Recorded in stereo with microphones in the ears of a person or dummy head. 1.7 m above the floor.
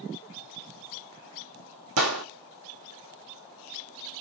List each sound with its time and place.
2.0 s a gunshot: 75° right (ahead or behind), 1.6 m